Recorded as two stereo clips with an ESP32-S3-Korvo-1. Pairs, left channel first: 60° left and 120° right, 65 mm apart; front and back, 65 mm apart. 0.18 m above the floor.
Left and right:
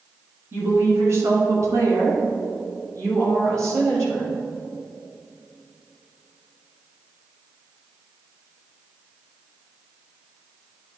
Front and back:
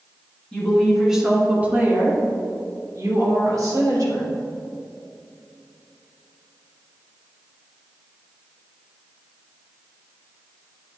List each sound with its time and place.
0.5 s a woman speaking: 75° right, 1.6 m; by 4.3 s 165° right, 3.5 m